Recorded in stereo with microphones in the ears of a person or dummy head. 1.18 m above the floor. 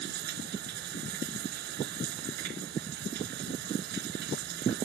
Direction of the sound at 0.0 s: 60° right (ahead or behind).